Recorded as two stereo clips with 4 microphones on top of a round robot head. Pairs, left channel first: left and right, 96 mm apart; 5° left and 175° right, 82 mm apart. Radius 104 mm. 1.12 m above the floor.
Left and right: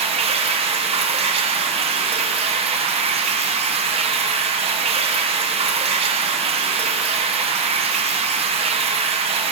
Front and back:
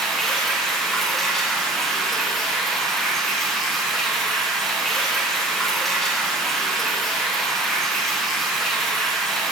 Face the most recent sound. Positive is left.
turn(degrees=-80)